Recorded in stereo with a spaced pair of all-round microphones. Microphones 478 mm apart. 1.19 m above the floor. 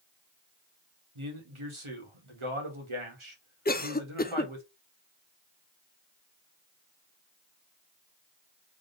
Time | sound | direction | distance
1.1 | a man speaking | 80° right | 1.7 m
3.6 | a cough | 20° left (ahead or behind) | 0.5 m